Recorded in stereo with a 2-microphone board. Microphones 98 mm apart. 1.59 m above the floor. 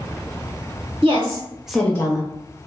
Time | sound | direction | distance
1.0 | a woman speaking | 50° right (ahead or behind) | 1.0 m